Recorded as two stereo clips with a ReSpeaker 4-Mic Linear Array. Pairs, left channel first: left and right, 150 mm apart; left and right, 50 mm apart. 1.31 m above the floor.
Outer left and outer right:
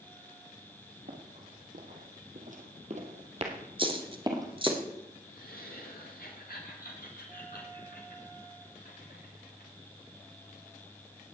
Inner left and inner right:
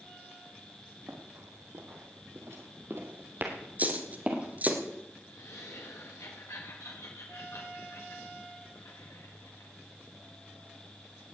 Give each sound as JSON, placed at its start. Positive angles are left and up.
{"t": 1.1, "sound": "running footsteps", "side_deg": -70, "distance_m": 3.5}
{"t": 3.8, "sound": "a dropped coin", "side_deg": -35, "distance_m": 1.8}
{"t": 5.3, "sound": "laughter", "side_deg": 85, "distance_m": 1.8}